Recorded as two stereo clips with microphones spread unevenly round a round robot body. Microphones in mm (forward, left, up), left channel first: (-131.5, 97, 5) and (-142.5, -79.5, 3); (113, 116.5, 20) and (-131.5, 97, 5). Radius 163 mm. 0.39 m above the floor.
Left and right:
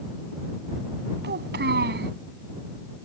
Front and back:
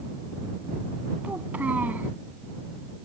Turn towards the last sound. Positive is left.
turn(degrees=-90)